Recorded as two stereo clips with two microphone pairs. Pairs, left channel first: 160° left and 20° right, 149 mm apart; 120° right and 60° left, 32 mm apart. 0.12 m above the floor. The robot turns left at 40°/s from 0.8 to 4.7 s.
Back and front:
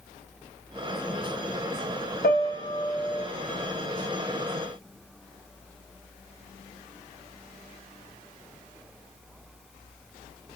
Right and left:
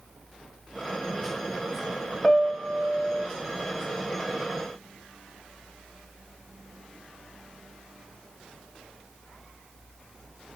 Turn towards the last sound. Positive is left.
turn(degrees=70)